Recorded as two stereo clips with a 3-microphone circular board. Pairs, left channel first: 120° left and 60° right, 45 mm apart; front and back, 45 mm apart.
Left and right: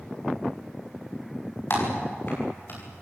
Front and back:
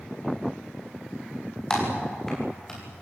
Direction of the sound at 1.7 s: 80° left.